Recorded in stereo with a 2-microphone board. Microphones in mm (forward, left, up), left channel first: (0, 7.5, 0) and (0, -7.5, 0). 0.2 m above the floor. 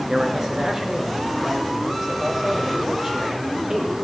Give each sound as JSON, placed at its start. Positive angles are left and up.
{"t": 0.1, "sound": "a man speaking", "side_deg": -25, "distance_m": 2.5}